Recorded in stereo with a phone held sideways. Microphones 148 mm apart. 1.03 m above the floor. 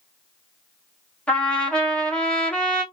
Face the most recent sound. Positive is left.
turn(degrees=10)  # may be behind; listen again after turning